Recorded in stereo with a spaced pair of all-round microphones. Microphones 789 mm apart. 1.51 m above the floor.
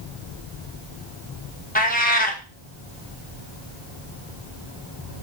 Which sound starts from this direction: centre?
A cat meowing, at 1.8 s.